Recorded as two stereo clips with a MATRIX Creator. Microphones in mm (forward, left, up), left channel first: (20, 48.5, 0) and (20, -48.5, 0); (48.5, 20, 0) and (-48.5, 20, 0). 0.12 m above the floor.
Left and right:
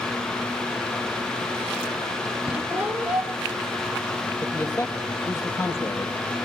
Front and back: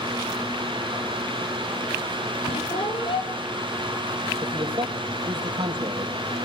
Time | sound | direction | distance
2.5 | a squeak | 15° right | 3.5 m
4.4 | a man speaking | 155° left | 4 m